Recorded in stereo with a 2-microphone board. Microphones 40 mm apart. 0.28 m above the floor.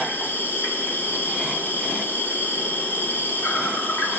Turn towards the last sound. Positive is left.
turn(degrees=50)  # may be behind; listen again after turning